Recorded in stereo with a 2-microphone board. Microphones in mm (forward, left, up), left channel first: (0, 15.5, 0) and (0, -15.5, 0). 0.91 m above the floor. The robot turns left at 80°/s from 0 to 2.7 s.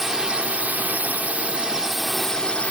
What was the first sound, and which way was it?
A drone, 10° right.